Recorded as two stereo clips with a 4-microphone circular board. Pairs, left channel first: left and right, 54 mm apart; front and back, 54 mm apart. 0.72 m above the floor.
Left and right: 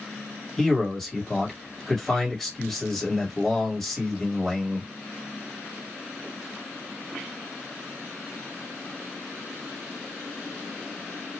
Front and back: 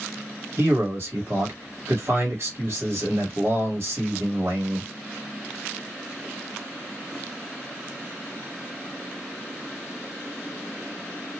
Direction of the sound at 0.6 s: 175° left.